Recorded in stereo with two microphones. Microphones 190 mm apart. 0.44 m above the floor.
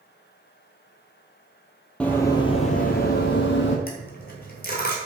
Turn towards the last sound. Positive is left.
turn(degrees=50)  # may be behind; listen again after turning